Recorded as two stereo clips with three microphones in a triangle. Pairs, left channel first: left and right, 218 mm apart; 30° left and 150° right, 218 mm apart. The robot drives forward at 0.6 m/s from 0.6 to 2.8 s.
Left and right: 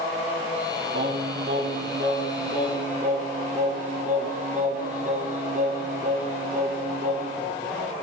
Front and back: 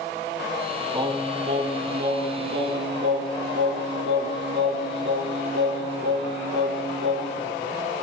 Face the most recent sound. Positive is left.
turn(degrees=-140)